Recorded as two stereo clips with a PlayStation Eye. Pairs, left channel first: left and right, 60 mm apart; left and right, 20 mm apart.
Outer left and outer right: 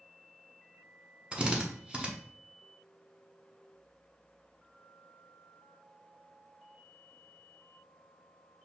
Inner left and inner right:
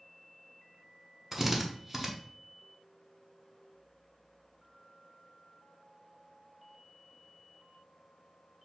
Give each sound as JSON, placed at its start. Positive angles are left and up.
{"t": 1.3, "sound": "a drill", "side_deg": -20, "distance_m": 0.6}